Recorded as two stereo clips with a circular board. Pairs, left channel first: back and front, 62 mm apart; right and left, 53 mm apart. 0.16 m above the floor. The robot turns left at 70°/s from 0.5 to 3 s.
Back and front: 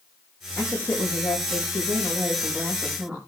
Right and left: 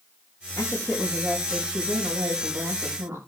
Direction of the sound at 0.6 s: 110° right.